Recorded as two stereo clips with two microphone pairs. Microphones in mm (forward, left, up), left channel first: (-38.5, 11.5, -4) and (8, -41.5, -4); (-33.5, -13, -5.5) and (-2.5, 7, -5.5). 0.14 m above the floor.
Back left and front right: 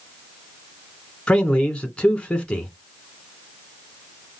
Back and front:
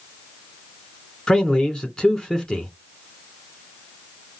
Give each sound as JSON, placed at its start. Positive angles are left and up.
{"t": 1.3, "sound": "a man speaking", "azimuth_deg": -175, "distance_m": 1.3}